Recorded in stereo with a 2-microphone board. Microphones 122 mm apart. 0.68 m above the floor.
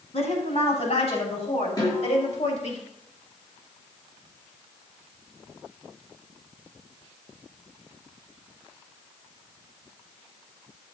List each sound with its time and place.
0.1 s a woman speaking: 60° left (ahead or behind), 5.5 m; by 2.8 s 65° left (ahead or behind), 4 m
1.8 s a snare drum: 30° left (ahead or behind), 7.5 m